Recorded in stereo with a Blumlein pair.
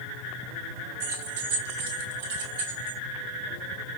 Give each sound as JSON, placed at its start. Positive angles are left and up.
{"t": 1.0, "sound": "keys jangling", "azimuth_deg": -50, "distance_m": 1.1}